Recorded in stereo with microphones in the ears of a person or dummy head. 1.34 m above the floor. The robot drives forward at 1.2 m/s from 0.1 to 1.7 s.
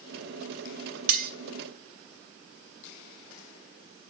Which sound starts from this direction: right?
Cutlery clinking, at 1.1 s.